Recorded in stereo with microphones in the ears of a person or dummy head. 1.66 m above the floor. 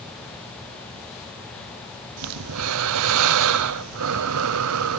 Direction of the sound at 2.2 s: 80° right.